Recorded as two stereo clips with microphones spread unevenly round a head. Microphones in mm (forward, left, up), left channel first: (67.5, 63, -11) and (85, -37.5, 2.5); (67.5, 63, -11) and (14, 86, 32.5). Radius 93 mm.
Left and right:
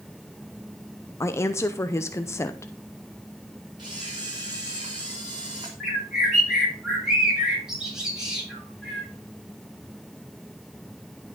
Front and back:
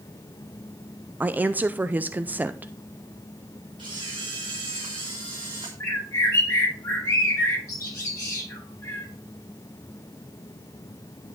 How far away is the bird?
About 8 m.